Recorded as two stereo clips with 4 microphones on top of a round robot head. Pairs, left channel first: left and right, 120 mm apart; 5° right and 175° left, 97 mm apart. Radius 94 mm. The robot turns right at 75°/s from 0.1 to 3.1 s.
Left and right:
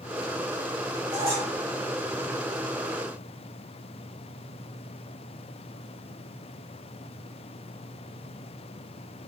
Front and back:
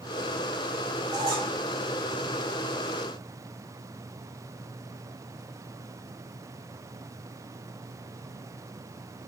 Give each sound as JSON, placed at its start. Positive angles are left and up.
{"t": 1.1, "sound": "a squeak", "azimuth_deg": -150, "distance_m": 2.5}